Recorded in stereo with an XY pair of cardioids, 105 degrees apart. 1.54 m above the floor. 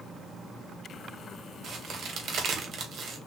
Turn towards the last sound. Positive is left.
turn(degrees=-55)